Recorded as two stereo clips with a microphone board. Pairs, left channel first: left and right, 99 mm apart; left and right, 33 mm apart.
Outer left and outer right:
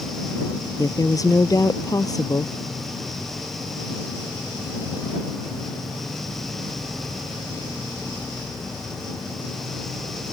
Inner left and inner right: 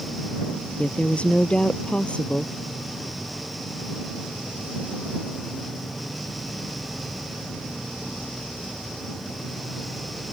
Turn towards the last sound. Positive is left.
turn(degrees=40)  # may be behind; listen again after turning